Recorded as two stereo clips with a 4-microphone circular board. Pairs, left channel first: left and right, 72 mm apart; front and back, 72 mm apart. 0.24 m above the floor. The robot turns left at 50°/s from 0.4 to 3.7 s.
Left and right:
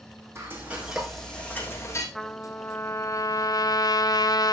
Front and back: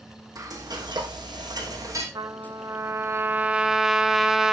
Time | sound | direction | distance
0.3 | frying | 145° right | 4 m
2.1 | a trumpet | 175° left | 1.1 m